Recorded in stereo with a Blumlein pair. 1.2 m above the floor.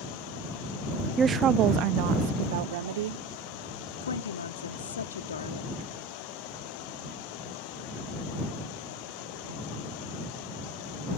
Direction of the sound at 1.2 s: 15° right.